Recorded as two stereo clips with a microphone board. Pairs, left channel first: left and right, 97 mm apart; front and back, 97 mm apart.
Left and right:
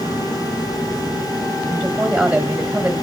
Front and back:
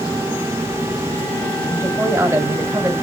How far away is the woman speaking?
About 1.6 m.